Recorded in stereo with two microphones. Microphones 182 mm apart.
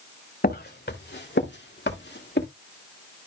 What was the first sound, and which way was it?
Footsteps, 60° left (ahead or behind).